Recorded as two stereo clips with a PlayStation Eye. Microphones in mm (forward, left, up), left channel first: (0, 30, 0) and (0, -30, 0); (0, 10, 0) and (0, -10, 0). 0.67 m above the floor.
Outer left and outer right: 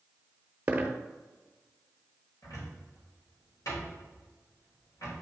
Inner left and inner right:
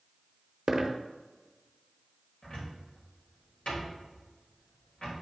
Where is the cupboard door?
70° left (ahead or behind), 3 m.